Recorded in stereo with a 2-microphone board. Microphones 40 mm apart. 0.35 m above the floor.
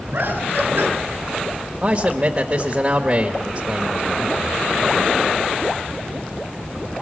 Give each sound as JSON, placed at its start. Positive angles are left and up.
{"t": 0.1, "sound": "laughter", "side_deg": -55, "distance_m": 4.5}
{"t": 1.8, "sound": "a man speaking", "side_deg": -30, "distance_m": 1.2}